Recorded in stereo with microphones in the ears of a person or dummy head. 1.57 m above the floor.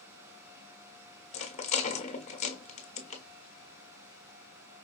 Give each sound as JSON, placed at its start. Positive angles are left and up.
{"t": 1.3, "sound": "a rattle", "side_deg": 30, "distance_m": 1.1}